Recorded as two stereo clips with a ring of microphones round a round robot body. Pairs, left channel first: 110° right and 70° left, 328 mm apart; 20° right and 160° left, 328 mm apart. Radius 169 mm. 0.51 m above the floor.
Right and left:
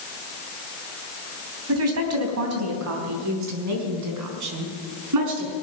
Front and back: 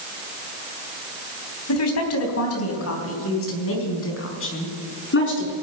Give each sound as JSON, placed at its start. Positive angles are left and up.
{"t": 1.7, "sound": "a woman speaking", "azimuth_deg": 20, "distance_m": 3.5}